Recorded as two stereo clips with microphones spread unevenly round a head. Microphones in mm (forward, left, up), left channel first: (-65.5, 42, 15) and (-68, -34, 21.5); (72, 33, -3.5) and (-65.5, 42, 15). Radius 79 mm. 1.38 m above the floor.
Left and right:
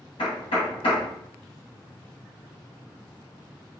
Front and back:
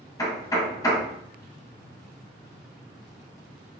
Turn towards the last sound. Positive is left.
turn(degrees=60)